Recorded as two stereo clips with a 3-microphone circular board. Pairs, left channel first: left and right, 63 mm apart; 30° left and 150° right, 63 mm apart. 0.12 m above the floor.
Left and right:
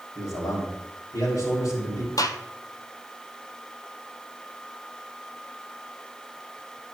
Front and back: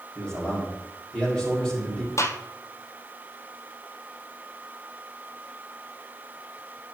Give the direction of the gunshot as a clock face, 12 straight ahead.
10 o'clock.